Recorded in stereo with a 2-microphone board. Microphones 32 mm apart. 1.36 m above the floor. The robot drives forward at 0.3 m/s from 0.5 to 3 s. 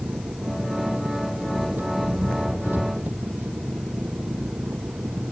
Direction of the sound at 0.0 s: 80° right.